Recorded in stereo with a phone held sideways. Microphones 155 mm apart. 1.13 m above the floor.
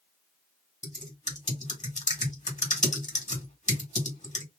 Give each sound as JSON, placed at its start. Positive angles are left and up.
{"t": 0.8, "sound": "typing on a keyboard", "side_deg": 50, "distance_m": 1.8}